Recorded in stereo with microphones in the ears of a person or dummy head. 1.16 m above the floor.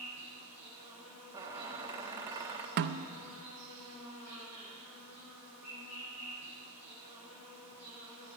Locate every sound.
0.0 s an insect: 80° left, 7 m
1.3 s a squeak: 15° right (ahead or behind), 1.0 m
2.8 s a snare drum: 55° right (ahead or behind), 0.6 m